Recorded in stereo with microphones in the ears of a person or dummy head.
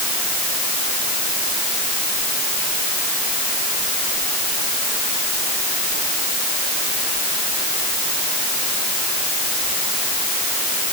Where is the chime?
No chime in this recording.